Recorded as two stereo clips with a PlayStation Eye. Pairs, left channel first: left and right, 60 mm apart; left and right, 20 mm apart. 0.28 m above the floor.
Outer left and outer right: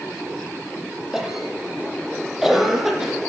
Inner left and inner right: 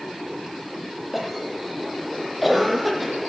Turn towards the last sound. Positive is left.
turn(degrees=-5)  # may be behind; listen again after turning